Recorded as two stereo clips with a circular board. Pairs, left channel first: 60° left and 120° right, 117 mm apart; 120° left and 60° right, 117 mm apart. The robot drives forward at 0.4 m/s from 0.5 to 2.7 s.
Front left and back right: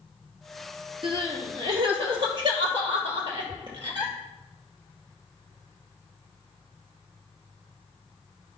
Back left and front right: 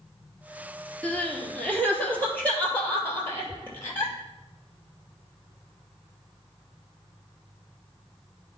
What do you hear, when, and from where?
1.0 s crying: 160° right, 1.4 m; by 4.1 s 165° right, 2 m